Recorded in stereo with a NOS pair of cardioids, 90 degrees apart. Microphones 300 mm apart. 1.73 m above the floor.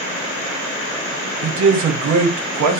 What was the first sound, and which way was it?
A man speaking, 70° right.